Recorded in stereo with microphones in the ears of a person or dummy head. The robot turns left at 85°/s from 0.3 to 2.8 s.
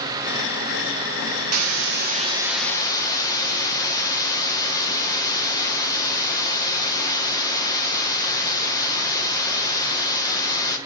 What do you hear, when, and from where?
1.5 s a hiss: 95° right, 1.3 m; by 10.8 s 155° left, 1.3 m